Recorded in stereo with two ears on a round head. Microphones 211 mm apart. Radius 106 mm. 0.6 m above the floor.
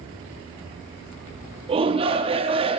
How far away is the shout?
About 0.6 m.